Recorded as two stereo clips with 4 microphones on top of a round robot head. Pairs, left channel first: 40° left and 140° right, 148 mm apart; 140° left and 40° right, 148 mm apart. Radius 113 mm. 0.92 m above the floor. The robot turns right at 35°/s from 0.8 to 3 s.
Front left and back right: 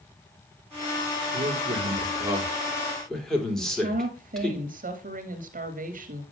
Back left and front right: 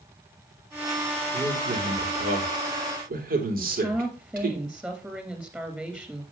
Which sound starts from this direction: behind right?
A woman speaking, at 3.6 s.